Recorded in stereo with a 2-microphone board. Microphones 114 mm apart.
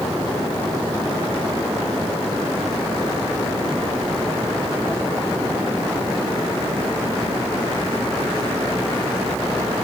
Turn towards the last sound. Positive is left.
No sound to turn to.